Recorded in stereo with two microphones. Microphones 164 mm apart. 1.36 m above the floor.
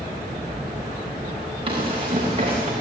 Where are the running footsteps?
35° right (ahead or behind), 8 m; by 2.7 s 40° right (ahead or behind), 8 m.